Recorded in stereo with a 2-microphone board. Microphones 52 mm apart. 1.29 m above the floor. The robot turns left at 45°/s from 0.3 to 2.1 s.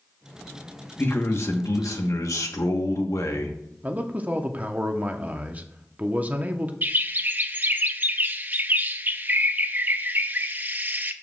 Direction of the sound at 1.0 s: 140° left.